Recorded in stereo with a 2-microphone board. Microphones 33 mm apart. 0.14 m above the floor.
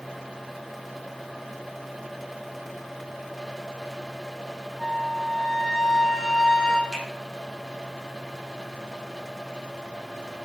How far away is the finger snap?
About 5.5 m.